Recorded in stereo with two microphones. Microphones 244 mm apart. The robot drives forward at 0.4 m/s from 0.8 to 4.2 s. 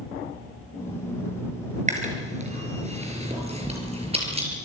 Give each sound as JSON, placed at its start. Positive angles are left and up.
{"t": 1.9, "sound": "chewing", "side_deg": -30, "distance_m": 4.5}